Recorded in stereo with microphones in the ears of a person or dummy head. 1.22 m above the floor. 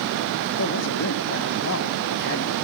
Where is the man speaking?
65° left (ahead or behind), 0.9 m.